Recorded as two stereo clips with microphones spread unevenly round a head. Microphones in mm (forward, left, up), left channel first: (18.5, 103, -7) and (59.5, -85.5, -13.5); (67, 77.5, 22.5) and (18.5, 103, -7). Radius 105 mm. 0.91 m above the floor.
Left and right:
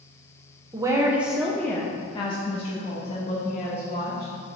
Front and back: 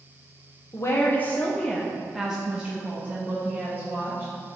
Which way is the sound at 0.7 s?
75° right.